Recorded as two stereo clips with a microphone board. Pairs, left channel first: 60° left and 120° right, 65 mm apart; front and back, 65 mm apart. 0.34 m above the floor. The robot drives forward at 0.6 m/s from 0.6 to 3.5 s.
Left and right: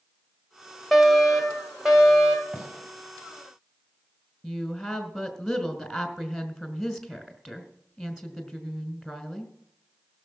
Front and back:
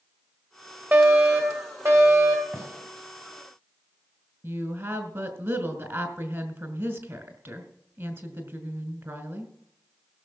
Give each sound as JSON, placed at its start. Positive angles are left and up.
{"t": 0.9, "sound": "a fire alarm", "azimuth_deg": 150, "distance_m": 2.0}
{"t": 2.5, "sound": "a gunshot", "azimuth_deg": 160, "distance_m": 2.5}
{"t": 4.4, "sound": "a woman speaking", "azimuth_deg": 150, "distance_m": 2.0}